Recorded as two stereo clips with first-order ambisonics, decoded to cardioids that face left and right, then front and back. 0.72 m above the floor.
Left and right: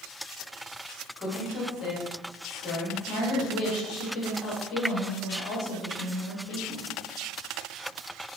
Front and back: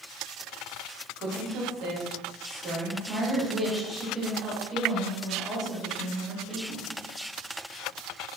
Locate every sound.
1.2 s a woman speaking: 145° left, 1.1 m
3.1 s a woman speaking: 90° left, 1.0 m